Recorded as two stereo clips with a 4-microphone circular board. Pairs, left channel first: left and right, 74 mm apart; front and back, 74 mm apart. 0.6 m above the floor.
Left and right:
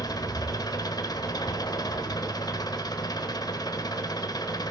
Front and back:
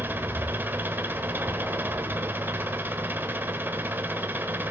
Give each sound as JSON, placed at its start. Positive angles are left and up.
{"t": 0.0, "sound": "an engine running", "azimuth_deg": 115, "distance_m": 1.0}